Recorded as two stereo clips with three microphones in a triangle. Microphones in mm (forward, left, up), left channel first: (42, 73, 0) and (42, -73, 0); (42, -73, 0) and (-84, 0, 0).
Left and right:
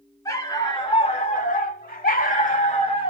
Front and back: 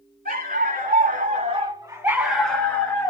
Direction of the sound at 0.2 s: 155° left.